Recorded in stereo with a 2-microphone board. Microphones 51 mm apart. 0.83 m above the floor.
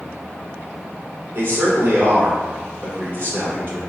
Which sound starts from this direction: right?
A man speaking, at 1.4 s.